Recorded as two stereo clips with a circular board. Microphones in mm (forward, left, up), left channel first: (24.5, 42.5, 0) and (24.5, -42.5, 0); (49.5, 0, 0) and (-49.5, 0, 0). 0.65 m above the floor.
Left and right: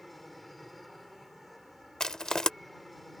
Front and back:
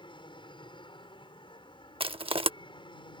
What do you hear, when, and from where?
0.0 s an aircraft: straight ahead
2.0 s crushing: 170° left